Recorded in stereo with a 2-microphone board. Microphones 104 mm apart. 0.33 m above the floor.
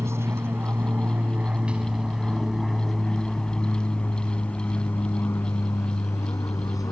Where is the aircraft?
25° right (ahead or behind); by 6.9 s 35° left (ahead or behind).